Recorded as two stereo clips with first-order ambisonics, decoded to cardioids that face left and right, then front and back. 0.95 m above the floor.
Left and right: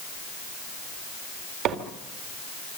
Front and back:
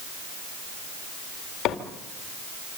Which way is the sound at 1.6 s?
50° right.